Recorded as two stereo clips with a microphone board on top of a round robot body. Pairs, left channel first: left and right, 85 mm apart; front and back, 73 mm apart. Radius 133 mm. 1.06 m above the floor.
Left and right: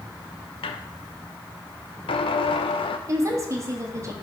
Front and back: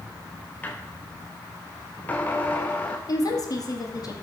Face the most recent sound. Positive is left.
turn(degrees=-35)